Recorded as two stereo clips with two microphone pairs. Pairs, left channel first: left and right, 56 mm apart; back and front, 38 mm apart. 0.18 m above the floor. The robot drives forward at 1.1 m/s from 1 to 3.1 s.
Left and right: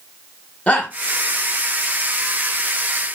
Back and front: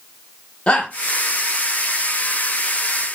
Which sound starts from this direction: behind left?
A shout, at 0.7 s.